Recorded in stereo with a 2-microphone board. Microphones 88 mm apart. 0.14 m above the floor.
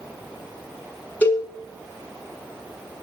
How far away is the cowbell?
About 0.7 m.